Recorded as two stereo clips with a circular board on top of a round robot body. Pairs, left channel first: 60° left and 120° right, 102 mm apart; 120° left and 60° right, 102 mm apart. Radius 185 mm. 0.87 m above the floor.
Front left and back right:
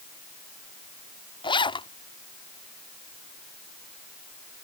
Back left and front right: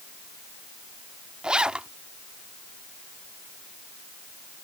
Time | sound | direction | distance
1.4 | a zipper | 20° left | ?